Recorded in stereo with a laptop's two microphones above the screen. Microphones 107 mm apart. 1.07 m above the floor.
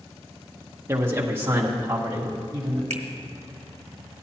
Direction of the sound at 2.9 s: 85° right.